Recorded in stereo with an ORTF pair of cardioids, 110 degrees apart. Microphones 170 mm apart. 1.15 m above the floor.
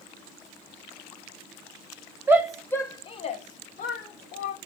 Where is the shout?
15° right, 0.5 m; by 4.6 s 70° left, 1.1 m.